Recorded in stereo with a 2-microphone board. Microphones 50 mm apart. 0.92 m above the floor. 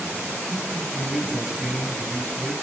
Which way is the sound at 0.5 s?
5° right (ahead or behind).